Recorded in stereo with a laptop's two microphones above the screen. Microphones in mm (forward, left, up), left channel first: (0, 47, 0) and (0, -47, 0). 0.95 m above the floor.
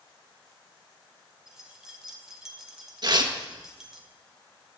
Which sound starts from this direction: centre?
Keys jangling, at 1.5 s.